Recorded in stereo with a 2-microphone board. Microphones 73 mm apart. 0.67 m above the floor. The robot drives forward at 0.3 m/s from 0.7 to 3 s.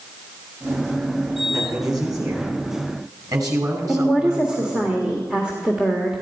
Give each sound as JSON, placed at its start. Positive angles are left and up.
{"t": 1.5, "sound": "a man speaking", "side_deg": -55, "distance_m": 4.5}
{"t": 3.9, "sound": "a woman speaking", "side_deg": -10, "distance_m": 1.7}